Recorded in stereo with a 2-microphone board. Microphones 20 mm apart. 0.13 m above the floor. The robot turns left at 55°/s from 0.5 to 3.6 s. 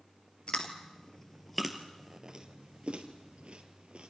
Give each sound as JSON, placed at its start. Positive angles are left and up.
{"t": 0.5, "sound": "chewing", "side_deg": 55, "distance_m": 1.9}